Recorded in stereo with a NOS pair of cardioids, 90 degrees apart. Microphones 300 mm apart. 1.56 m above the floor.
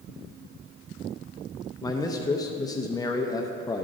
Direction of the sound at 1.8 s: 15° left.